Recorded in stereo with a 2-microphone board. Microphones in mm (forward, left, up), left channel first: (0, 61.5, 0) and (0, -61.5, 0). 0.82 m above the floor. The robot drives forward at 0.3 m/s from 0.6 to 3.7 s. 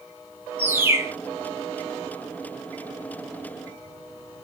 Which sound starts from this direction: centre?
A bird, at 0.6 s.